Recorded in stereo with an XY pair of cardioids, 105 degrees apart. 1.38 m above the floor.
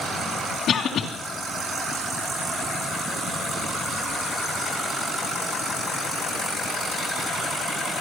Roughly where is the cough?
Ahead left.